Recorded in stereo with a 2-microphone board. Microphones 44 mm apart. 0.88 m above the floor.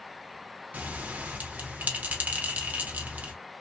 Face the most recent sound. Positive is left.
turn(degrees=-40)  # may be behind; listen again after turning